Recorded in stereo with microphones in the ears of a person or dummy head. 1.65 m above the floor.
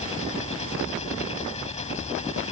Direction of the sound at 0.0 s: 35° left (ahead or behind).